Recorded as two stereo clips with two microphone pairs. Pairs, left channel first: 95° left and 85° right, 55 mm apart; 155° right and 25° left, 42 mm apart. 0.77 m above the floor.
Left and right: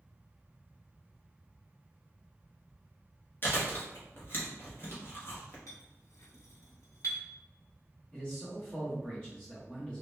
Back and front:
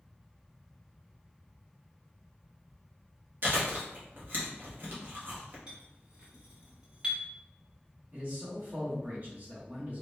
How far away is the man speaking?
About 0.9 m.